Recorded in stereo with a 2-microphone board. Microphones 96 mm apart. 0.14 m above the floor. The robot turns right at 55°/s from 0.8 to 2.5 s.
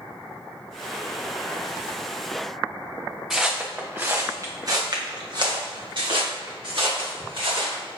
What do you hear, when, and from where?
3.3 s footsteps: 5° right (ahead or behind), 0.9 m; by 7.8 s 70° right (ahead or behind), 2.5 m